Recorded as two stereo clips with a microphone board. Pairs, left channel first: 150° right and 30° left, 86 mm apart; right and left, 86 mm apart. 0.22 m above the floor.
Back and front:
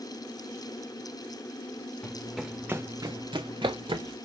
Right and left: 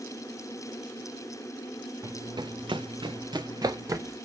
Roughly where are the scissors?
I don't hear scissors.